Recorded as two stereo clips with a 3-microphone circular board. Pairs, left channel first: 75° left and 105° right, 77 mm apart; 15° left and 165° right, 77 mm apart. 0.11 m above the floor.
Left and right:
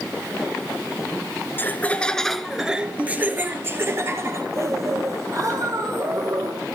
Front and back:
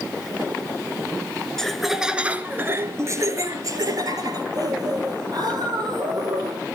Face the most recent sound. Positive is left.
turn(degrees=-145)